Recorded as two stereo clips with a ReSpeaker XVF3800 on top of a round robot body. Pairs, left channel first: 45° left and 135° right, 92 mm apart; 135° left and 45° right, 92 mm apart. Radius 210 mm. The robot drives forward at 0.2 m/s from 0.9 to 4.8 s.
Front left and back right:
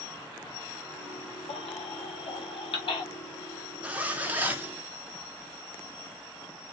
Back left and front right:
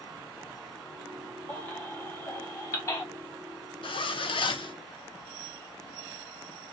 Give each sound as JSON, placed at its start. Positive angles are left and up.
{"t": 1.5, "sound": "a baby crying", "azimuth_deg": 65, "distance_m": 1.3}
{"t": 3.8, "sound": "a zipper", "azimuth_deg": 150, "distance_m": 0.9}